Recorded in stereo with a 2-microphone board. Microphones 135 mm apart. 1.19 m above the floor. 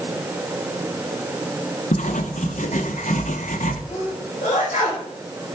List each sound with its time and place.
1.9 s writing: 65° left (ahead or behind), 1.6 m
3.9 s a sneeze: 65° left (ahead or behind), 6 m